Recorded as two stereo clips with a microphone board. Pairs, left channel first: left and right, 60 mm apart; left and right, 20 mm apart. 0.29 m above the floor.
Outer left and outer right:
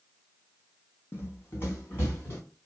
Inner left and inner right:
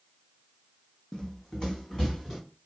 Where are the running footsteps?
40° left (ahead or behind), 0.6 m; by 2.4 s 35° left (ahead or behind), 1.4 m.